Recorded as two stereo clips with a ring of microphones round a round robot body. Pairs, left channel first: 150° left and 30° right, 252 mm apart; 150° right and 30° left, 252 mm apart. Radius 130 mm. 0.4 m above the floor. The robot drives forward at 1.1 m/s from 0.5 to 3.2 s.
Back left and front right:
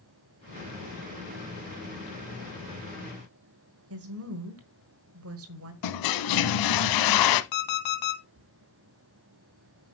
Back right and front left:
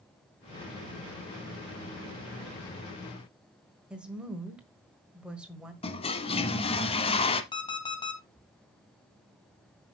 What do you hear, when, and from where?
3.9 s a woman speaking: 55° right, 1.6 m
5.8 s a toilet flushing: 140° left, 0.8 m
7.5 s an alarm clock: 135° left, 2 m